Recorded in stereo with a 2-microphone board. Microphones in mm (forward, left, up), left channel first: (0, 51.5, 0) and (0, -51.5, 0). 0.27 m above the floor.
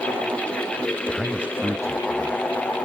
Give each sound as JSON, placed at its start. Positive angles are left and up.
{"t": 1.1, "sound": "a man speaking", "side_deg": 5, "distance_m": 1.2}